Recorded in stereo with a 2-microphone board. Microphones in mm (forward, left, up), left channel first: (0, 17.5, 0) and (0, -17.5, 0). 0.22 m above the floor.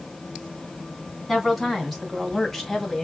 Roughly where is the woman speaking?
Centre.